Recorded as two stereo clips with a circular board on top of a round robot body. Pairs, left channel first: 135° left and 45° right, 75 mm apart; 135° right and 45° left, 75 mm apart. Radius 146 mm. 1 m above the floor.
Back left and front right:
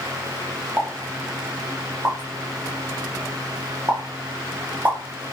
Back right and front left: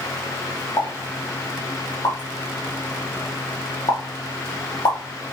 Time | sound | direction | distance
0.8 | a pop | 105° right | 1.1 m